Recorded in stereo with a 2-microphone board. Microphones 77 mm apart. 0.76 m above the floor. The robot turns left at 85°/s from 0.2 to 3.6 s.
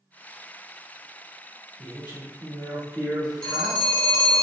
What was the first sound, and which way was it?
A man speaking, 60° right.